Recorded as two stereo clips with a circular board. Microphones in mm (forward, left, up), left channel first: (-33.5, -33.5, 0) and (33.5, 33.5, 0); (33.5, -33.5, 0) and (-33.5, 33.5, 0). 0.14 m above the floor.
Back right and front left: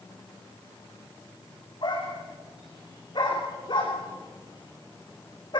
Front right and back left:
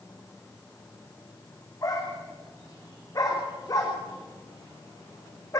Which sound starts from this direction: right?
A dog barking, at 1.8 s.